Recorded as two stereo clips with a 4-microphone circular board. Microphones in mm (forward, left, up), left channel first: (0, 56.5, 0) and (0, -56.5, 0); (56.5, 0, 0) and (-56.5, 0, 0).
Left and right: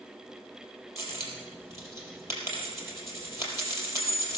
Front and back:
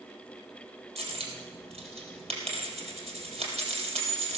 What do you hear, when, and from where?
1.0 s a dropped coin: 155° right, 4 m